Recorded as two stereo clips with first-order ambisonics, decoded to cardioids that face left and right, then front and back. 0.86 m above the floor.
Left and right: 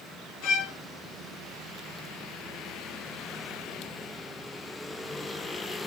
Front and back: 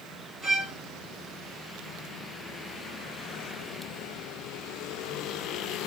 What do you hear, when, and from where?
0.4 s a violin: 100° left, 1.7 m